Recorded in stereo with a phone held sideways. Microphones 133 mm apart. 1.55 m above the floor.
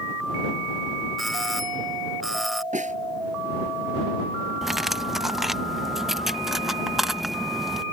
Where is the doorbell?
Centre (ahead or behind).